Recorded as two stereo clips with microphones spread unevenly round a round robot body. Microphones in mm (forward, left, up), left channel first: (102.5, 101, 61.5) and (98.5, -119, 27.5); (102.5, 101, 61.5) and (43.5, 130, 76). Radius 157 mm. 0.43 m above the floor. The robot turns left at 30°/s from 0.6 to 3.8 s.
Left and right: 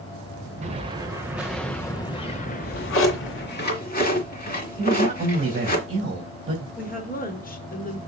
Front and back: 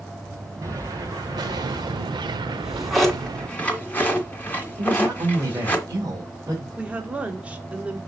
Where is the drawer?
80° left, 2.5 m; by 5.8 s 40° left, 2.5 m.